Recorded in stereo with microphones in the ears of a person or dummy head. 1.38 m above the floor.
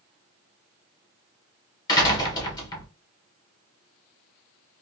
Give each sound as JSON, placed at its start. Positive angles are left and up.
{"t": 1.9, "sound": "a door slam", "side_deg": 20, "distance_m": 0.9}